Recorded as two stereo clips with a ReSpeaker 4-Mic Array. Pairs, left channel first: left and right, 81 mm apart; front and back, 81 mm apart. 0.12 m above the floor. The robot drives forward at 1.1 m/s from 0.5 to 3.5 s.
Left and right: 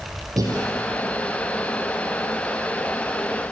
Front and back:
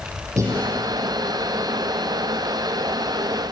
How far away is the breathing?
About 5 m.